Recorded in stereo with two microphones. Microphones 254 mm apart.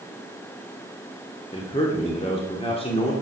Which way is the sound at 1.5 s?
20° left (ahead or behind).